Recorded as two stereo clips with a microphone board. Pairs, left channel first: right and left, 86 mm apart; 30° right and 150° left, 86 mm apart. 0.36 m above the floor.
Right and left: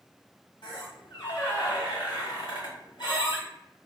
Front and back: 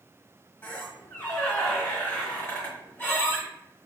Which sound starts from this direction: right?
A squeak, at 0.6 s.